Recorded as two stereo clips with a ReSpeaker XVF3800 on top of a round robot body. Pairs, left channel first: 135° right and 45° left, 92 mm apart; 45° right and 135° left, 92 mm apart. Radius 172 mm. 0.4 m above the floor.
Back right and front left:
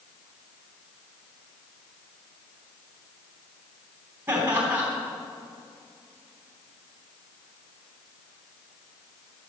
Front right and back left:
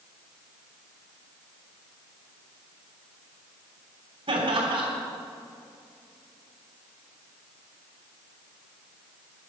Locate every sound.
4.3 s laughter: 105° left, 3.5 m